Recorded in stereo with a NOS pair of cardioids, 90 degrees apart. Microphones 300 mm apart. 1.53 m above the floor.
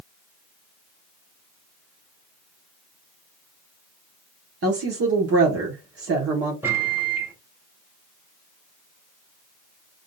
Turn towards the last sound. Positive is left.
turn(degrees=-5)